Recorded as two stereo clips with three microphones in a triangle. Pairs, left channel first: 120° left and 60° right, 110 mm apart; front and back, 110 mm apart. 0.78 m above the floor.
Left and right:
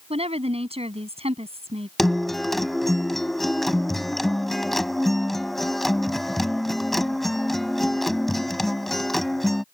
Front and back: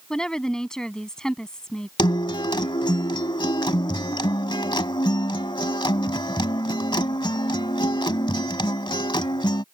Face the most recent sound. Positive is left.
turn(degrees=35)